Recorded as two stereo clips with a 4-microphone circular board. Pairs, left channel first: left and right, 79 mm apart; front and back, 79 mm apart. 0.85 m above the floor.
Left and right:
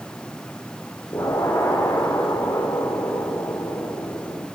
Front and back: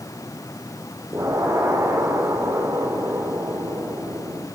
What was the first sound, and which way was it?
An explosion, 135° left.